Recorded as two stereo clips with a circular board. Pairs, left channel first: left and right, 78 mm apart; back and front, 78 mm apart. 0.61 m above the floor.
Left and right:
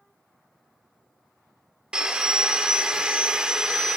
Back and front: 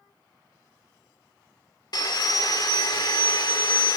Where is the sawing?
165° right, 1.3 m.